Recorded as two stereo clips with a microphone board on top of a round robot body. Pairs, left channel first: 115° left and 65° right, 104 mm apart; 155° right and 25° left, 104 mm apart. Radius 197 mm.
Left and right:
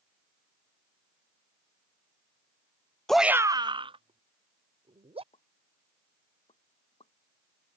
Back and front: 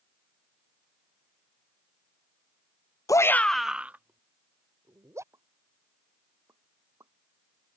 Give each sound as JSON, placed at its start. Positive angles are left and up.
{"t": 3.1, "sound": "a shout", "azimuth_deg": -165}
{"t": 5.3, "sound": "a pop", "azimuth_deg": 85}